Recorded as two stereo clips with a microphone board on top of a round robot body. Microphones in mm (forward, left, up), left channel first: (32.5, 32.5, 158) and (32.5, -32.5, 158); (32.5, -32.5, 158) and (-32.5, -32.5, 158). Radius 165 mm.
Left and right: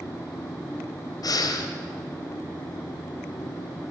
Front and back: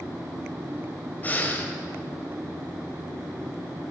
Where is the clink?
I don't hear a clink.